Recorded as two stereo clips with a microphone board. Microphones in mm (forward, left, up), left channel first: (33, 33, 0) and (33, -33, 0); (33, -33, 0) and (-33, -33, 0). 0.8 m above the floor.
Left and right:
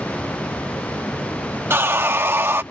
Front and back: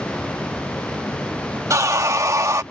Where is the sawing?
140° right.